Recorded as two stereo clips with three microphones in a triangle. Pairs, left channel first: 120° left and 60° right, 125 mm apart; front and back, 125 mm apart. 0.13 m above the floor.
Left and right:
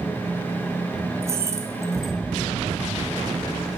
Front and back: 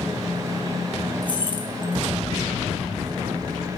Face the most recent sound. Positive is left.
turn(degrees=-5)